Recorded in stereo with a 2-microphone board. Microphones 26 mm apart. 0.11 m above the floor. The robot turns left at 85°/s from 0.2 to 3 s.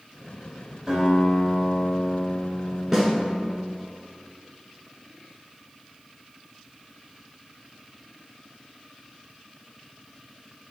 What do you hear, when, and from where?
0.9 s a guitar: 20° right (ahead or behind), 1.5 m; by 3.7 s 20° left (ahead or behind), 1.5 m
2.9 s a snare drum: 20° right (ahead or behind), 1.0 m